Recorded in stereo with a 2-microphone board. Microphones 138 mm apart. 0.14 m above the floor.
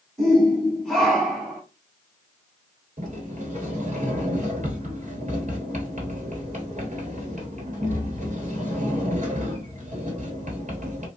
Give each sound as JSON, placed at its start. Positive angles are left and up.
{"t": 0.2, "sound": "a shout", "side_deg": 5, "distance_m": 1.5}
{"t": 3.0, "sound": "a sliding door", "side_deg": -65, "distance_m": 1.1}